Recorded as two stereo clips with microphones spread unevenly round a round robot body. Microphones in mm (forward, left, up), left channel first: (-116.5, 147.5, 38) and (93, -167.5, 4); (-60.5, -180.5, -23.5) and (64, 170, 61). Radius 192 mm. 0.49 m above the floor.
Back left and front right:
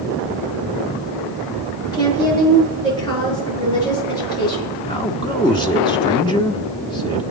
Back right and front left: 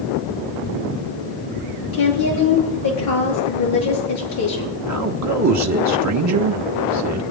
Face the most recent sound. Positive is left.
turn(degrees=45)